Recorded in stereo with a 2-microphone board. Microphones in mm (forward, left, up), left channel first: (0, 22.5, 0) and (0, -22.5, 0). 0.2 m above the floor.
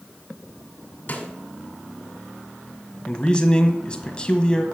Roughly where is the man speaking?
Left.